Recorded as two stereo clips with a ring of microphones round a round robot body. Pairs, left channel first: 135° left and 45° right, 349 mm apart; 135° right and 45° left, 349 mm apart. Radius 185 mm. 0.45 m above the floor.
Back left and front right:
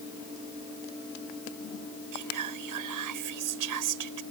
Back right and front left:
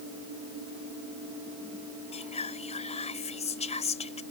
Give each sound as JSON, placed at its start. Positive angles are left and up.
{"t": 2.1, "sound": "whispering", "azimuth_deg": -65}